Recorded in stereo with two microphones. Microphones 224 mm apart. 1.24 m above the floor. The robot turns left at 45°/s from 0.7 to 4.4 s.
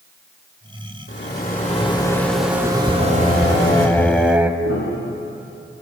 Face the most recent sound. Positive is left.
turn(degrees=75)  # may be behind; listen again after turning